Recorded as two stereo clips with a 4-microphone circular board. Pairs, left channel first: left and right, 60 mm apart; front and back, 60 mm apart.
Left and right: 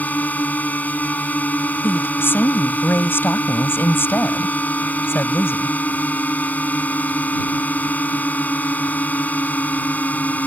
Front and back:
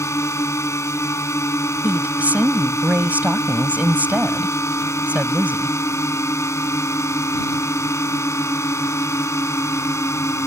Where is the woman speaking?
125° left.